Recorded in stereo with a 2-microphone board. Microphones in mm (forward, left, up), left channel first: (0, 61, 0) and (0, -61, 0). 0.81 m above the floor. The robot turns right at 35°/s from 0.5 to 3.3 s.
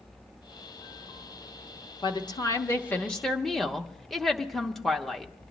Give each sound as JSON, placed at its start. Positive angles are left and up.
{"t": 2.0, "sound": "a woman speaking", "azimuth_deg": 135, "distance_m": 0.9}